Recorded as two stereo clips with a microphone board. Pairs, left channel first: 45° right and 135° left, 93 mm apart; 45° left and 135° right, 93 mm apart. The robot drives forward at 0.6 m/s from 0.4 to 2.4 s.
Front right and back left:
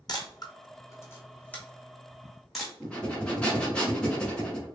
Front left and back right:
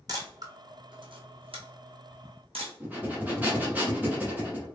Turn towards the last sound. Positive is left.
turn(degrees=-100)